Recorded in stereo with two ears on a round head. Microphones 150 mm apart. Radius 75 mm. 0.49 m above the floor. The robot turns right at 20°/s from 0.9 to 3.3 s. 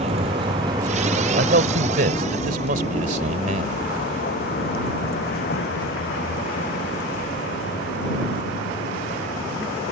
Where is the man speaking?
95° right; by 3.9 s 55° right.